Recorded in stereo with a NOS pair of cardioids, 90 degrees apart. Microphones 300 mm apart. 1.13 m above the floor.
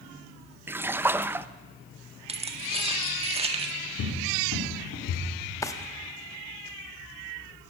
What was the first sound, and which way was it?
A splash, 5° right.